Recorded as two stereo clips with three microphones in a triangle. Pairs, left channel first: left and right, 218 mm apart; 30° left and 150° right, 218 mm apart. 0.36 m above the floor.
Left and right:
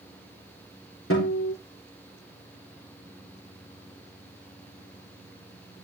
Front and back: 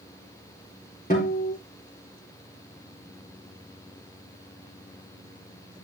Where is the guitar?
80° left, 5.5 m.